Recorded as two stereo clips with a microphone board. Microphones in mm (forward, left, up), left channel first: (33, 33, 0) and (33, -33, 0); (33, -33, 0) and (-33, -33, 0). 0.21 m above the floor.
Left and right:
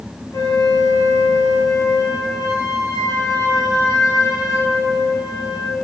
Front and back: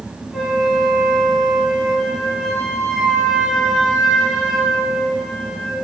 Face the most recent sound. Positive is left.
turn(degrees=90)